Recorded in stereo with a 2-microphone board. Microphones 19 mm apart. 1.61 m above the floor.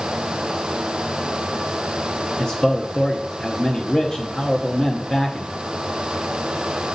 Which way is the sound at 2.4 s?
30° left (ahead or behind).